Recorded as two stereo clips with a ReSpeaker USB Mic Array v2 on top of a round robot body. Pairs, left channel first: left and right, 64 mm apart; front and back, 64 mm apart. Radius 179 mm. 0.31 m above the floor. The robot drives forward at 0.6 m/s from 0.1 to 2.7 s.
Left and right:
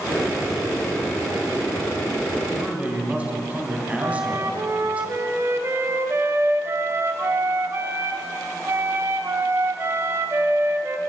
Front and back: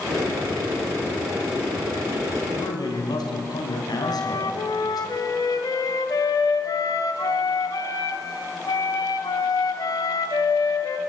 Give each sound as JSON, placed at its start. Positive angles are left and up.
{"t": 2.5, "sound": "a man speaking", "azimuth_deg": -20, "distance_m": 3.5}
{"t": 4.0, "sound": "a flute", "azimuth_deg": -35, "distance_m": 1.2}